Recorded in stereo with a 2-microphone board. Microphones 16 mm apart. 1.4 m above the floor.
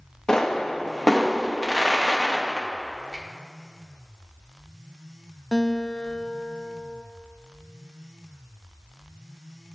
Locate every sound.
0.3 s a pop: 55° left (ahead or behind), 1.0 m
3.1 s a finger snap: 5° right (ahead or behind), 2 m
5.5 s a guitar: 35° left (ahead or behind), 0.7 m